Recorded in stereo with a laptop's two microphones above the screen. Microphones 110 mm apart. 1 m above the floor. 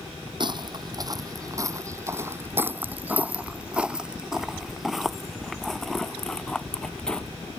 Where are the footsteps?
45° right (ahead or behind); by 7.3 s 10° left (ahead or behind).